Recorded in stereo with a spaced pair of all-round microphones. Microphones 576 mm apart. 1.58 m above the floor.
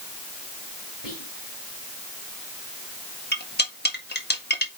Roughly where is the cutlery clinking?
Centre.